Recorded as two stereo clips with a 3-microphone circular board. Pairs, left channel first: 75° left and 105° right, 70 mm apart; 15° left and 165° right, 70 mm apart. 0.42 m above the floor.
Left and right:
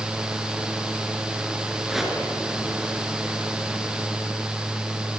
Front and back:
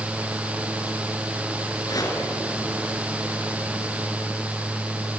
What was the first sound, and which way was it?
A whoosh, 20° right.